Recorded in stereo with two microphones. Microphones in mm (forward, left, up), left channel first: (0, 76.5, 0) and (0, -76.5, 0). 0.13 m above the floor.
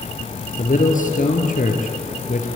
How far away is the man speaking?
About 3 m.